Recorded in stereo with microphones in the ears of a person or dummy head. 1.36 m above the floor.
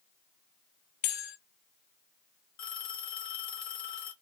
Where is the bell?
50° left (ahead or behind), 0.6 m.